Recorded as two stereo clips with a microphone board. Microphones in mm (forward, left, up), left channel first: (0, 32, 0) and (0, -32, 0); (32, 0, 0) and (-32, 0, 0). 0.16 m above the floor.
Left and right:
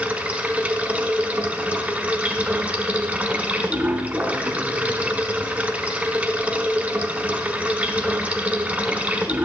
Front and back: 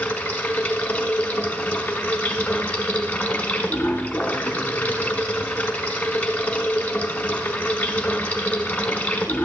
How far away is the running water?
About 1.2 m.